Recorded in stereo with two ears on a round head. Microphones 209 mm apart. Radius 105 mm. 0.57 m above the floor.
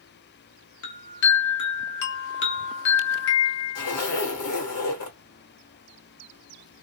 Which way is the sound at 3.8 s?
80° left.